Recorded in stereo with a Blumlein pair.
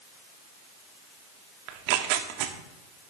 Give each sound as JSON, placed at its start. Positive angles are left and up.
{"t": 1.7, "sound": "tearing paper", "azimuth_deg": -45, "distance_m": 0.7}